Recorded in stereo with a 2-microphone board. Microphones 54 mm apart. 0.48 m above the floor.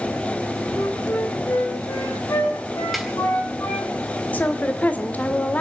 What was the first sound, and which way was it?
A flute, 70° left (ahead or behind).